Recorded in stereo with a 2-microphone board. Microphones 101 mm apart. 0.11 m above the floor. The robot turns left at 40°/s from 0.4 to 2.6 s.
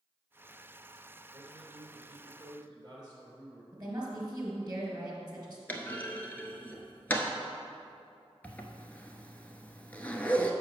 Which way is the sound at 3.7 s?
35° right (ahead or behind).